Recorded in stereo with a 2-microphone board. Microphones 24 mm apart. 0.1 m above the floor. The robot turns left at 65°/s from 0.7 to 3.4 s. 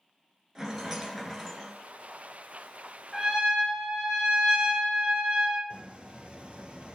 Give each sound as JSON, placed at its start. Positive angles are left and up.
{"t": 0.6, "sound": "a rattle", "side_deg": -20, "distance_m": 1.1}
{"t": 3.1, "sound": "a trumpet", "side_deg": -30, "distance_m": 1.0}
{"t": 5.7, "sound": "a squeak", "side_deg": -45, "distance_m": 0.5}